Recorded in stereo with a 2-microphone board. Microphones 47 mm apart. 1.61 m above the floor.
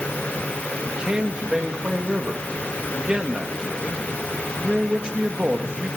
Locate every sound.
0.8 s a man speaking: 20° right (ahead or behind), 2.5 m